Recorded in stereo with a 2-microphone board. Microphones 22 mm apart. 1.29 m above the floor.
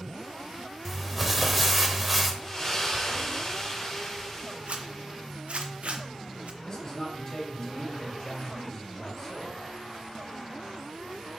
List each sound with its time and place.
0.8 s crumpling: 5° right (ahead or behind), 1.0 m
2.4 s a splash: 25° left (ahead or behind), 3.5 m
4.7 s a zipper: 70° right (ahead or behind), 0.8 m
6.6 s a man speaking: 20° left (ahead or behind), 3 m